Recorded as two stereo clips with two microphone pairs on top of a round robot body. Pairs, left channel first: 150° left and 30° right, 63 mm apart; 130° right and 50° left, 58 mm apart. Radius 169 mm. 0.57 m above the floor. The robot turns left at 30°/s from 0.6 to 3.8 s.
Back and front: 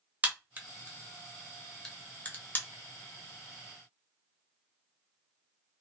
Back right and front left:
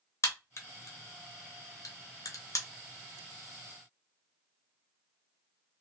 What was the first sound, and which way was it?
A crack, 95° right.